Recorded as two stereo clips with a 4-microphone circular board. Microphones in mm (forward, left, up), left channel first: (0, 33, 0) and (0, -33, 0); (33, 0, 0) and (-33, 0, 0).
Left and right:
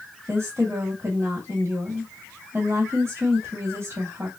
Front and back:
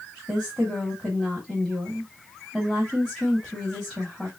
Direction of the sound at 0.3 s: 95° right.